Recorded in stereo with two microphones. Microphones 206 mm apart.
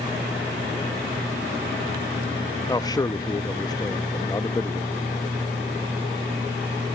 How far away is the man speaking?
About 0.5 m.